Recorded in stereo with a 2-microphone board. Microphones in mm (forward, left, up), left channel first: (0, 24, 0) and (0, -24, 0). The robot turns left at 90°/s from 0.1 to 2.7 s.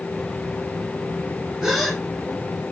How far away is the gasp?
About 1.3 m.